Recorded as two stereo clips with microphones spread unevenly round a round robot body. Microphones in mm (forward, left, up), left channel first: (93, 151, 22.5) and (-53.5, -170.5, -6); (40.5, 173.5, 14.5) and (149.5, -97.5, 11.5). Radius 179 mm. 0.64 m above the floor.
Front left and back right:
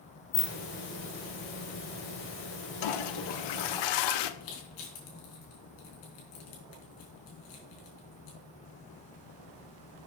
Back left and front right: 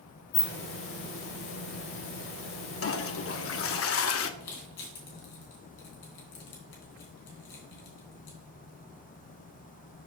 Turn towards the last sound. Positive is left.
turn(degrees=95)